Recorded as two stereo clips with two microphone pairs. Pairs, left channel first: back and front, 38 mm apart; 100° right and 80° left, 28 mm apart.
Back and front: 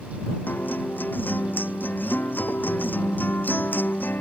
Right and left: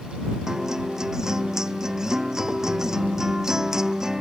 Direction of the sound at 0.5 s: 150° left.